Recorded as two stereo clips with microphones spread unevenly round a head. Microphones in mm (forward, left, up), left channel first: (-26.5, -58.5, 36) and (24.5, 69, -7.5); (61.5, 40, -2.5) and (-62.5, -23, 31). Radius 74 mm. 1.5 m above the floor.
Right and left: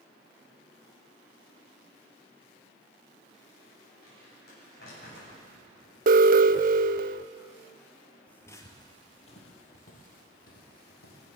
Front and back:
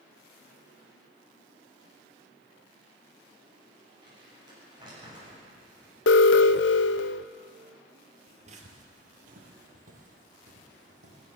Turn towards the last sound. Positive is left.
turn(degrees=-115)